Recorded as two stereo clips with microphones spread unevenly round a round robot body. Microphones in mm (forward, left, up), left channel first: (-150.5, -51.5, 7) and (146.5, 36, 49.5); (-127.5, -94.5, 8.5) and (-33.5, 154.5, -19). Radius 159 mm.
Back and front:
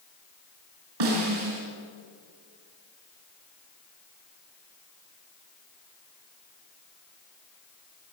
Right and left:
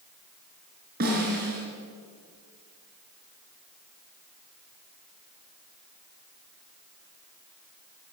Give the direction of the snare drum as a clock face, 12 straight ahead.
12 o'clock.